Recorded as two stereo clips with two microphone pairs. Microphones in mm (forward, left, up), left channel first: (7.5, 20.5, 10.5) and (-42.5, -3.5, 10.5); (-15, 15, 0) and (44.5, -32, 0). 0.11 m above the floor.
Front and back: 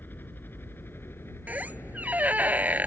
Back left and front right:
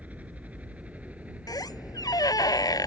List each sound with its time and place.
0.0 s a helicopter: 15° left; by 2.9 s 30° left
1.5 s a squeak: 150° left